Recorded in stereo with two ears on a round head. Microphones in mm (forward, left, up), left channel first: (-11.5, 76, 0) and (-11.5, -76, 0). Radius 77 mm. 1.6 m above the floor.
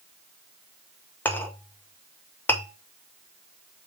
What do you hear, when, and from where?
1.2 s a clink: 10° left (ahead or behind), 1.1 m